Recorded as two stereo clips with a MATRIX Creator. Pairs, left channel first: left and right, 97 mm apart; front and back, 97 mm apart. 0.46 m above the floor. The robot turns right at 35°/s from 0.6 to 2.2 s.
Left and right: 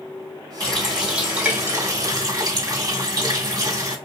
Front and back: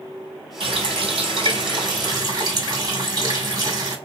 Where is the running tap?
170° left, 1.8 m; by 4.0 s 135° right, 1.8 m.